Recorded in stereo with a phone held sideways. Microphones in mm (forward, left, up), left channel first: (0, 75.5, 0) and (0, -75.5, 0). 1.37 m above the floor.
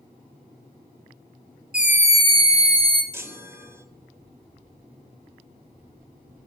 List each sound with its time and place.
1.7 s a scream: 5° right (ahead or behind), 0.9 m; by 3.0 s 35° right (ahead or behind), 0.9 m
3.1 s a chime: 15° right (ahead or behind), 0.9 m